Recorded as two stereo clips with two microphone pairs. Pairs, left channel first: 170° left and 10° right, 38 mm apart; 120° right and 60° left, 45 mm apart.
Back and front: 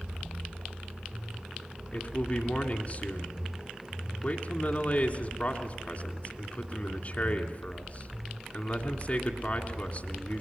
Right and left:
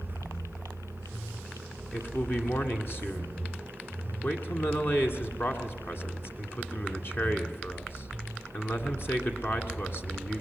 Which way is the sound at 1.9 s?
145° right.